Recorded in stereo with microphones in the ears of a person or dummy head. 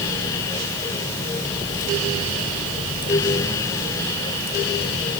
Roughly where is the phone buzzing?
No phone buzzing in this recording.